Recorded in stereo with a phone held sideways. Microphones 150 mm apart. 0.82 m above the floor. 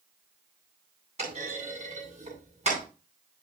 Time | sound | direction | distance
1.2 | a clunk | 50° right (ahead or behind) | 8.5 m